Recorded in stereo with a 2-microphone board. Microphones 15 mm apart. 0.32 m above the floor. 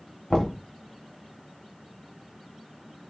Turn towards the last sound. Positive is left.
turn(degrees=50)  # may be behind; listen again after turning